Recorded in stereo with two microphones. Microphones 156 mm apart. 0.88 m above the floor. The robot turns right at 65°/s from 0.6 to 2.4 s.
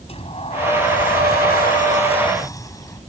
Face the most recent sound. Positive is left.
turn(degrees=160)